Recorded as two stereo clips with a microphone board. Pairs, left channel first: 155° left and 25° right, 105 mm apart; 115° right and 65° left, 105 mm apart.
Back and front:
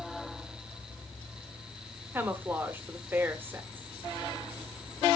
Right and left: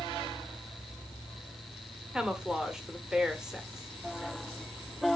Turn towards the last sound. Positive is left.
turn(degrees=-5)